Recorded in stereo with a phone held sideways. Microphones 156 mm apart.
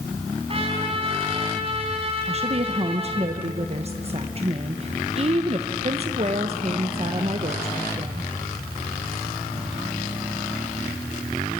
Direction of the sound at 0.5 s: 40° right (ahead or behind).